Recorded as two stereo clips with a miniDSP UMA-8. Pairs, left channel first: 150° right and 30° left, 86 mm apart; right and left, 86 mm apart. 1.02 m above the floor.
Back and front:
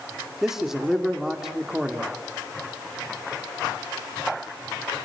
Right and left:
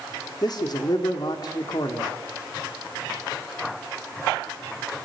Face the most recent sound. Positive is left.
turn(degrees=-55)